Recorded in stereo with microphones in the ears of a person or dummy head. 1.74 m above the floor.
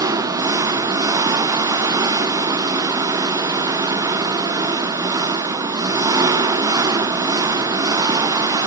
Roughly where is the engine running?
Centre.